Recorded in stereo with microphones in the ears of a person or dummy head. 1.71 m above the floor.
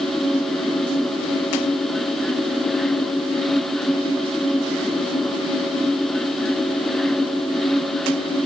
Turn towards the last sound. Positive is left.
No sound to turn to.